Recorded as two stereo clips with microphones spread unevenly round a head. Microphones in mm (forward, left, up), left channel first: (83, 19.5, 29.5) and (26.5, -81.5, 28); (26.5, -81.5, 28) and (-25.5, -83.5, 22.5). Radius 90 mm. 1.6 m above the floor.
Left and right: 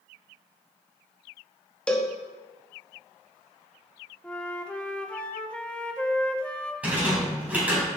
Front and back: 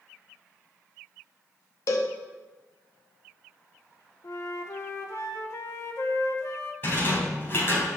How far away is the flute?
About 1.0 m.